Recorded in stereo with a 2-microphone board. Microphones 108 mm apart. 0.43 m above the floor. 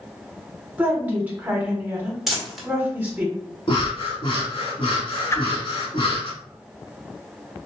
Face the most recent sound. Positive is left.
turn(degrees=25)  # may be behind; listen again after turning